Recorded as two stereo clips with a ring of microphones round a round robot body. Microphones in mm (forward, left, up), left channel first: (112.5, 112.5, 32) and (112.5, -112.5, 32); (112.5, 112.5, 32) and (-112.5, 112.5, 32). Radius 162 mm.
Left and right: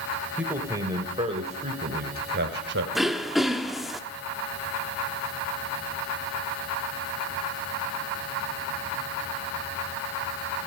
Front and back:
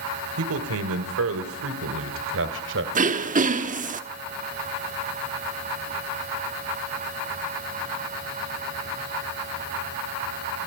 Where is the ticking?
I don't hear ticking.